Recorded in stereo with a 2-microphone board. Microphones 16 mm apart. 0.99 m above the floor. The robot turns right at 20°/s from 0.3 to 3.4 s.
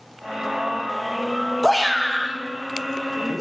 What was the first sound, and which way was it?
A shout, 150° left.